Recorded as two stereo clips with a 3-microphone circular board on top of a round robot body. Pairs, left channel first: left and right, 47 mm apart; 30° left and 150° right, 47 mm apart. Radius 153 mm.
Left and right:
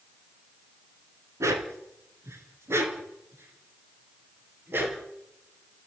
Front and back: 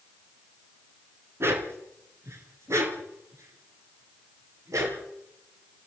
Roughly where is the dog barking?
Right.